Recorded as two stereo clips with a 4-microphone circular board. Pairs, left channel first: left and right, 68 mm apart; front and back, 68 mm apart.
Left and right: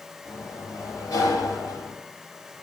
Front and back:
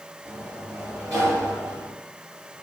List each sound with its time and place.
0.2 s a sliding door: 130° left, 4.5 m